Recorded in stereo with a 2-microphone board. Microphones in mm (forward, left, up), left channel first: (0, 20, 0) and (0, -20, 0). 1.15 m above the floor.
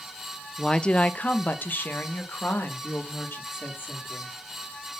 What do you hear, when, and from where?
0.6 s a woman speaking: 10° left (ahead or behind), 0.5 m; by 4.3 s 70° left (ahead or behind), 3 m